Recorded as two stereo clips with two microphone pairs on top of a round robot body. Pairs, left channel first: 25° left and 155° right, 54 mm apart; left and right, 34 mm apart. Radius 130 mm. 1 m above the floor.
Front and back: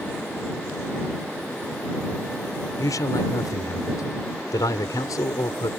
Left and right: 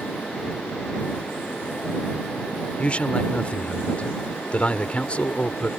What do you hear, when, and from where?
2.8 s a man speaking: 40° left